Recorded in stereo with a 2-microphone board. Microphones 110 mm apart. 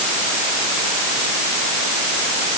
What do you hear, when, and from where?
Only background noise.